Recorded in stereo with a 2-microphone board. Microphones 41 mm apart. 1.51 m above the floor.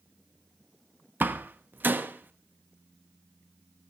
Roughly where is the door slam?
Right.